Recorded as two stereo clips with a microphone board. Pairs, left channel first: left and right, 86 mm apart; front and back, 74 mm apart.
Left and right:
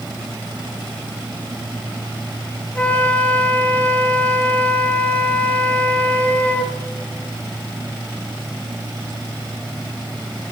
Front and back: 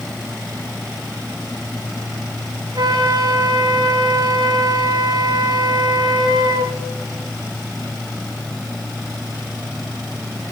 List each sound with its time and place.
2.8 s a flute: 165° left, 1.3 m